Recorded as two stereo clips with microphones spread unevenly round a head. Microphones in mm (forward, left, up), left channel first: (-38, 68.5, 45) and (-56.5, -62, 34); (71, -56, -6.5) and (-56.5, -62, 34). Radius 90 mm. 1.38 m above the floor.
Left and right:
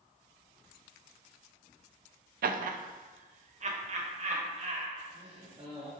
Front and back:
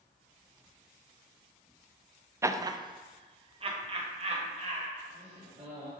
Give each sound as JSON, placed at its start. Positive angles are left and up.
{"t": 2.4, "sound": "laughter", "azimuth_deg": -110, "distance_m": 0.6}